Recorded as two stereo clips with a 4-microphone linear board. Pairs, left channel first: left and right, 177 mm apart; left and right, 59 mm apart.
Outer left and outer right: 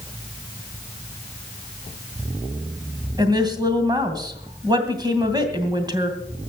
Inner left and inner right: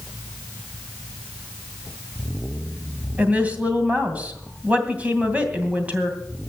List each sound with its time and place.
3.2 s a woman speaking: 25° right (ahead or behind), 2.5 m